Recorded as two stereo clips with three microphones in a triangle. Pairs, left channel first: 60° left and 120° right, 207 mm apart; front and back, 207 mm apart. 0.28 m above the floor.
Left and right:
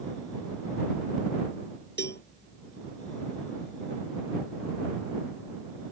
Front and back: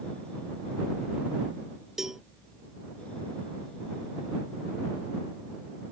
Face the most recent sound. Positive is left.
turn(degrees=90)